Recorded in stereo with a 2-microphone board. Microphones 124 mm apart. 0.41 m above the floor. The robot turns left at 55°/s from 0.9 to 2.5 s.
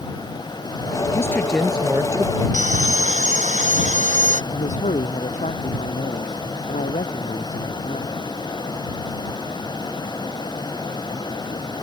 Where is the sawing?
75° right (ahead or behind).